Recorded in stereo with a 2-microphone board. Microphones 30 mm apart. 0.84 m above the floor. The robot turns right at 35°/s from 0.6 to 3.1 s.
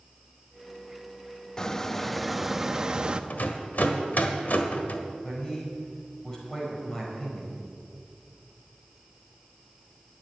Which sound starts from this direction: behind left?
A squeak, at 1.6 s.